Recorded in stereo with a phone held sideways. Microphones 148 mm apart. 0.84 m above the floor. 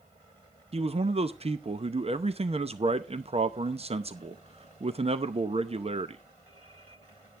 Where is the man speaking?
40° right (ahead or behind), 0.7 m.